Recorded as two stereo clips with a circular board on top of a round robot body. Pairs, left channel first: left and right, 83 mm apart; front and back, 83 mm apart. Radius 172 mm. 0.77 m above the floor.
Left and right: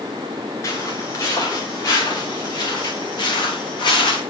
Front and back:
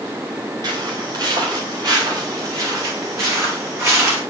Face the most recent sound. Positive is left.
turn(degrees=120)